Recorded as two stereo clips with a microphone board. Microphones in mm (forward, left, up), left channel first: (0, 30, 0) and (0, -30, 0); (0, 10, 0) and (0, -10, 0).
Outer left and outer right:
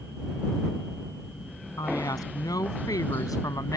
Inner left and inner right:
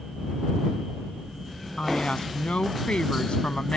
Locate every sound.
1.8 s a woman speaking: 85° left; by 3.8 s 80° left